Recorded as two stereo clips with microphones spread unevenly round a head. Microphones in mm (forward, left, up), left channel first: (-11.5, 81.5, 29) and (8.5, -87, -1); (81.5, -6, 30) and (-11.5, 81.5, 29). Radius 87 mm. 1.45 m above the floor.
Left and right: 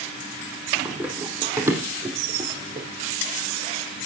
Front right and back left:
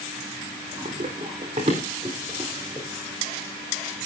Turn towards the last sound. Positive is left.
turn(degrees=-150)